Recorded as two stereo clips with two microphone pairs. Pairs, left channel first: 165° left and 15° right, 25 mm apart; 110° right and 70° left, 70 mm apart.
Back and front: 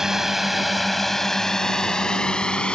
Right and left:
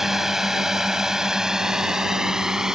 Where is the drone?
5° right; by 2.8 s 145° left.